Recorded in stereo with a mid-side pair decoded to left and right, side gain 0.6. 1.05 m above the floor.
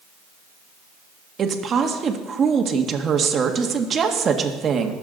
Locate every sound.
1.4 s a woman speaking: 35° right, 1.6 m